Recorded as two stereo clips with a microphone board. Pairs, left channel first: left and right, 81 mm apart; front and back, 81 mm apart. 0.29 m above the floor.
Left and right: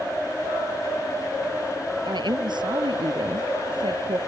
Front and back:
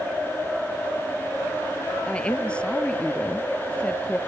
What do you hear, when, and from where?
2.0 s a woman speaking: 75° right